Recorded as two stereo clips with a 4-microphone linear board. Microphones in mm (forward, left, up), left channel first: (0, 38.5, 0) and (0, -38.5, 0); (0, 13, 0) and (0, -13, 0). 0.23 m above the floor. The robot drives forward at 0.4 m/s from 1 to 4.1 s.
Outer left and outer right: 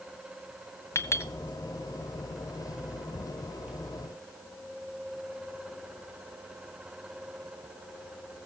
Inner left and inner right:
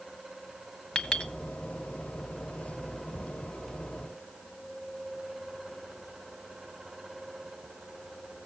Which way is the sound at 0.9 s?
35° left (ahead or behind).